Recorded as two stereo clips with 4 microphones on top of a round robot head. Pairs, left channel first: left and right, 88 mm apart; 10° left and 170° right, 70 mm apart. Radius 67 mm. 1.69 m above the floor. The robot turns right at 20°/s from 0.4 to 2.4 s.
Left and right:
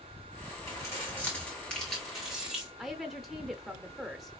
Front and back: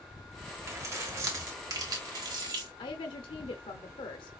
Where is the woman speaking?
Straight ahead, 0.6 m.